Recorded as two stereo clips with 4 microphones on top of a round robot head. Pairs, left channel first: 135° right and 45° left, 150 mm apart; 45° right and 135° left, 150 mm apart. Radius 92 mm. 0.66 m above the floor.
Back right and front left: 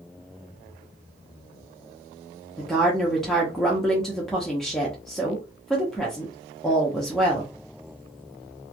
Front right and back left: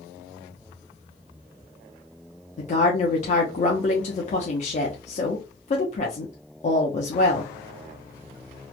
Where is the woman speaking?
50° right, 0.7 m.